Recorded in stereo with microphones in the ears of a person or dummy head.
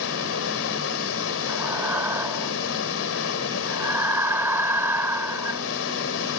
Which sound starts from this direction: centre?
Breathing, at 1.5 s.